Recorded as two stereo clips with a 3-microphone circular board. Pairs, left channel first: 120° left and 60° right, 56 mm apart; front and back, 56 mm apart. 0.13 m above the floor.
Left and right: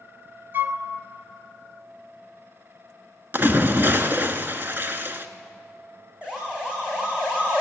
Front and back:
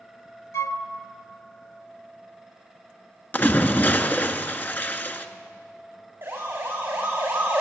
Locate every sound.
0.5 s a flute: 20° right, 0.8 m
3.3 s a splash: 35° right, 1.1 m
6.2 s a siren: 130° right, 7 m; by 7.6 s 120° right, 6.5 m